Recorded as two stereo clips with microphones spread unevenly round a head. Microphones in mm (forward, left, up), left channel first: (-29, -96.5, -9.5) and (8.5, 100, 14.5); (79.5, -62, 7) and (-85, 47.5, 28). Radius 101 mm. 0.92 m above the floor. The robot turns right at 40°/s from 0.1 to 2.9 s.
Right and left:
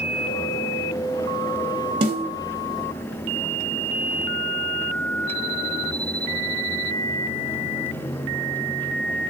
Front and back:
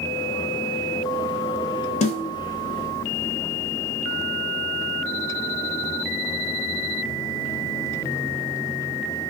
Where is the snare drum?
10° left, 0.9 m; by 2.3 s 20° left, 0.9 m.